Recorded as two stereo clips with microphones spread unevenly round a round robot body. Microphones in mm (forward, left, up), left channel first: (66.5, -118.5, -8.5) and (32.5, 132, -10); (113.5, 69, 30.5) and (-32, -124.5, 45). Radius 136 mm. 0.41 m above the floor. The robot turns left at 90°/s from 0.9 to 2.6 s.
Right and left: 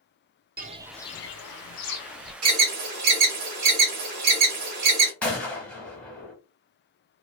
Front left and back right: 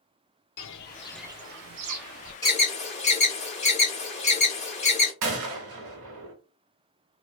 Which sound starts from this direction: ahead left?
Footsteps, at 0.6 s.